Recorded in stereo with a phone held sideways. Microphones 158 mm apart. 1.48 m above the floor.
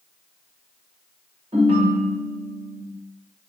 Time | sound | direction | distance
1.5 | a ringtone | 35° right (ahead or behind) | 0.8 m